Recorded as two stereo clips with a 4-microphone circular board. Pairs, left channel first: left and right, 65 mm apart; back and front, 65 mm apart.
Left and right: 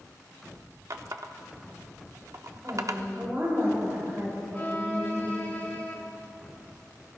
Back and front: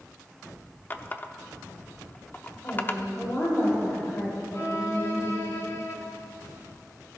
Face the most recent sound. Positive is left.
turn(degrees=145)